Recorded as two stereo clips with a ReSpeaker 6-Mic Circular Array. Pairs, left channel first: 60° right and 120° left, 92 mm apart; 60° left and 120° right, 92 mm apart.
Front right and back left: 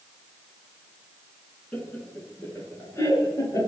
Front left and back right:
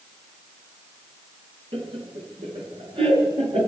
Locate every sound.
1.7 s laughter: 130° right, 8 m; by 3.7 s 115° right, 9.5 m